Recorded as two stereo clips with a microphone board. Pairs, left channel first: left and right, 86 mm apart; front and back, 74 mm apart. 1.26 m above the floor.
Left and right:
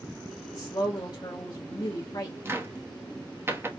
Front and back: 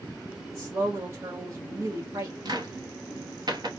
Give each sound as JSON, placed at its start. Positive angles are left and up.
{"t": 0.5, "sound": "a woman speaking", "azimuth_deg": 130, "distance_m": 1.0}
{"t": 2.5, "sound": "a cupboard door", "azimuth_deg": -155, "distance_m": 0.9}